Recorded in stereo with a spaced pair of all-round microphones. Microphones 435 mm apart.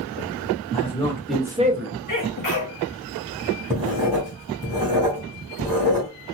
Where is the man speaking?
15° left (ahead or behind), 1.3 m; by 2.0 s 40° right (ahead or behind), 0.5 m.